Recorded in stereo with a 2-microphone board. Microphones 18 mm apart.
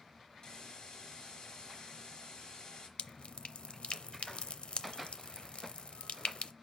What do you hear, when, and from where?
0.4 s a hiss: 55° left (ahead or behind), 3 m
3.0 s dripping: 75° left (ahead or behind), 0.6 m